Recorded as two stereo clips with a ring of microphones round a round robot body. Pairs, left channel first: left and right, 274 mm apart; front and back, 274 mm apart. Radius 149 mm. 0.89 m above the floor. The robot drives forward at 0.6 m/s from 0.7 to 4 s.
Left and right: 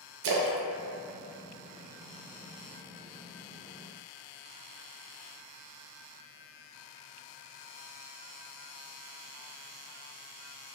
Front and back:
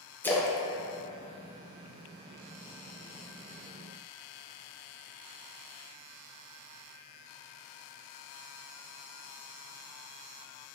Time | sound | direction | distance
0.2 | a splash | 85° right | 0.5 m